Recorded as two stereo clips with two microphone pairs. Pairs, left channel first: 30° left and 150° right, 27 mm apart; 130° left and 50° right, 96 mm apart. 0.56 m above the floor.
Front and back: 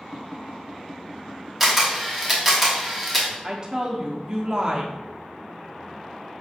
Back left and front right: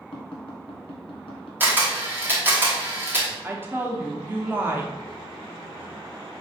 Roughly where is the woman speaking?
Right.